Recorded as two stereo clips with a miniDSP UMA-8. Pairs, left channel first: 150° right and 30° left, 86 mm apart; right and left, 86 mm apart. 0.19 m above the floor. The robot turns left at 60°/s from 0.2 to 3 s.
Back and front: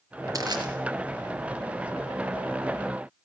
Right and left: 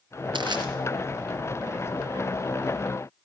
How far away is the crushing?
About 3 m.